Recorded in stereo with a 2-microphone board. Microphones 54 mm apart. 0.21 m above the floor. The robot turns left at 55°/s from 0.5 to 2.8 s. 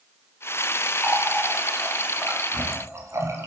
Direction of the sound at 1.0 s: 35° left (ahead or behind).